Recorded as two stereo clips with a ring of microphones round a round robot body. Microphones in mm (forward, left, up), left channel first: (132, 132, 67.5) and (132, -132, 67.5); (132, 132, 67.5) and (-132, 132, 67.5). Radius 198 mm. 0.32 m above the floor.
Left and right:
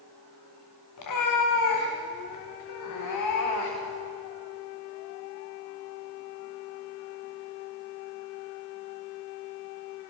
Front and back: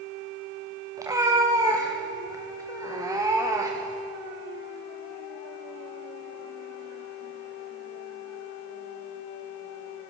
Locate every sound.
1.0 s a cat meowing: 100° left, 6 m